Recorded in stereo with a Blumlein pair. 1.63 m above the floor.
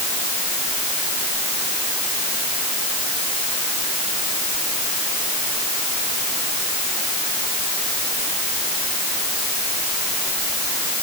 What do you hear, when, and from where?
Only background noise.